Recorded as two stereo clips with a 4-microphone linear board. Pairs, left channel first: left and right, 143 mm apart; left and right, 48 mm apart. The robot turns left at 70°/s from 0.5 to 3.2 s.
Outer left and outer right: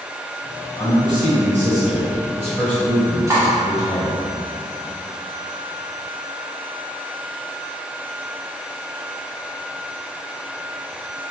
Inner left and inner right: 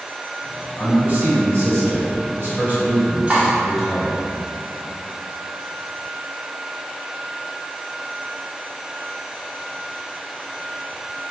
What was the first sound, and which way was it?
A man speaking, 10° right.